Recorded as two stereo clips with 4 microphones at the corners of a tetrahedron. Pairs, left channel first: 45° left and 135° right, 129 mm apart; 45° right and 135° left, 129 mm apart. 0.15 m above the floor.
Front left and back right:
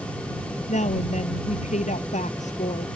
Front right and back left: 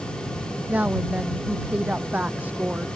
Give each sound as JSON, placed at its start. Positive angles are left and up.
{"t": 0.7, "sound": "a woman speaking", "azimuth_deg": 60}